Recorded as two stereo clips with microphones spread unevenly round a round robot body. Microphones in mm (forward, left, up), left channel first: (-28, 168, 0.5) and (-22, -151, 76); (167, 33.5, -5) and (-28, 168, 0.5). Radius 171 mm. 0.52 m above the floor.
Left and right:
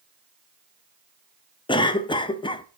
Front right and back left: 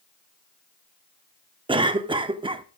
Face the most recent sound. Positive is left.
turn(degrees=100)